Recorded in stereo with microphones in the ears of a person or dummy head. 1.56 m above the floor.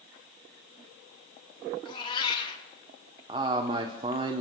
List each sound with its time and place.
1.9 s a cat meowing: 25° left (ahead or behind), 1.8 m
3.3 s a man speaking: 30° right (ahead or behind), 0.9 m